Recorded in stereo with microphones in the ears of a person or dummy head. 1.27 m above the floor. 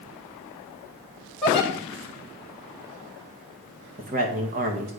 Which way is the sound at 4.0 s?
40° right (ahead or behind).